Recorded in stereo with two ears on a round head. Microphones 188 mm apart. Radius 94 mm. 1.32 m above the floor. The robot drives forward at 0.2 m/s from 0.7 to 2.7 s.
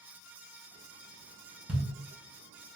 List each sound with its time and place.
1.7 s a thud: 5° right (ahead or behind), 0.8 m